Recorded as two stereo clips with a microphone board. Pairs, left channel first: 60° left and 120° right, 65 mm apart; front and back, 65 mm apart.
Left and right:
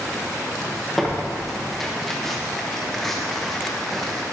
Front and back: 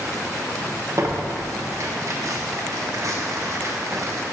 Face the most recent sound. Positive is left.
turn(degrees=145)